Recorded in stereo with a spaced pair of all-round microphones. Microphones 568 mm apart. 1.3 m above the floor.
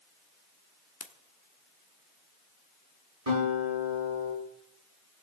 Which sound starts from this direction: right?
A guitar, at 3.3 s.